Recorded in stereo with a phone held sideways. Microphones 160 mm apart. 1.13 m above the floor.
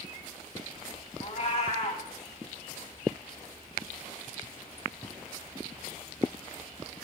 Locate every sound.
1.2 s a cat meowing: 45° left (ahead or behind), 1.4 m